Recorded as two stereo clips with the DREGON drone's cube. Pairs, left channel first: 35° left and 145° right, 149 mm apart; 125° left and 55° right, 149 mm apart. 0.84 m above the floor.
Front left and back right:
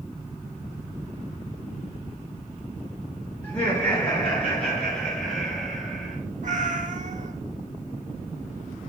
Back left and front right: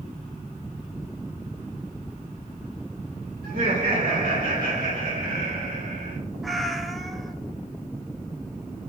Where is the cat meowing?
145° right, 0.8 m.